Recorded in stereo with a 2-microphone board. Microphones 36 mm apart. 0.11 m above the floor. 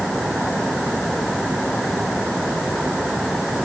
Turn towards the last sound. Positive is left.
No sound to turn to.